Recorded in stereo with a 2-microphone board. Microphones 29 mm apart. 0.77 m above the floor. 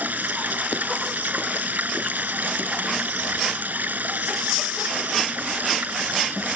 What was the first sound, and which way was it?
Running water, 85° right.